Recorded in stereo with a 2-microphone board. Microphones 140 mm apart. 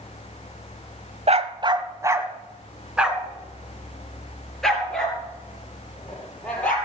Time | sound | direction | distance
1.3 | a dog barking | 50° right (ahead or behind) | 0.7 m